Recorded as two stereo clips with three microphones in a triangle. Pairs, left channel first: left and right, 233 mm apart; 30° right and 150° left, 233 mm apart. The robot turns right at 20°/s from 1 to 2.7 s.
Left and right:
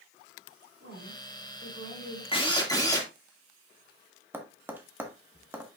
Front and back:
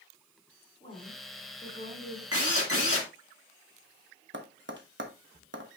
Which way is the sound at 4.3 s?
170° right.